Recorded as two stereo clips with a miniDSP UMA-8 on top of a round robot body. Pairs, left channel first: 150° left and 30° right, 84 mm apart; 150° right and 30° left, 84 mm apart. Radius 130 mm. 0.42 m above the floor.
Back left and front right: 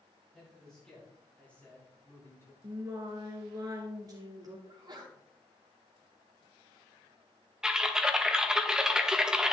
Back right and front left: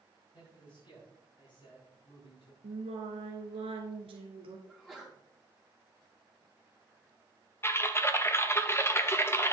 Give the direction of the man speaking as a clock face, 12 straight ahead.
4 o'clock.